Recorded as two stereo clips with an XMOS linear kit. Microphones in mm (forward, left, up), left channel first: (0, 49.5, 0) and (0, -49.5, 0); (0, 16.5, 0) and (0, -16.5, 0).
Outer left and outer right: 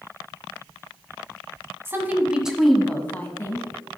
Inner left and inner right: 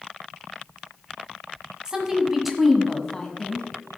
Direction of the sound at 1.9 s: 25° right (ahead or behind).